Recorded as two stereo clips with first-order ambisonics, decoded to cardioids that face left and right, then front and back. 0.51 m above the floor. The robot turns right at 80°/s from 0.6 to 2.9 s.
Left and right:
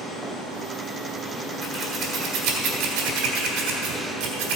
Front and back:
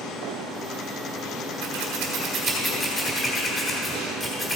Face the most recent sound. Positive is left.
turn(degrees=-75)